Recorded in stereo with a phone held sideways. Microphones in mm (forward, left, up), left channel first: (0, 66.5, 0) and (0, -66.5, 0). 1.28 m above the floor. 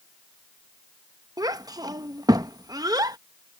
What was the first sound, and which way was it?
A child speaking, 30° right (ahead or behind).